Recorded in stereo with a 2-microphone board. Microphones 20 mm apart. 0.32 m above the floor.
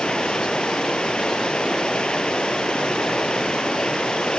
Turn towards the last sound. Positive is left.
turn(degrees=55)  # may be behind; listen again after turning